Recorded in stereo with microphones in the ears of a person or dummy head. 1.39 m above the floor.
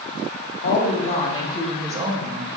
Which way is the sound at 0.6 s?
55° left (ahead or behind).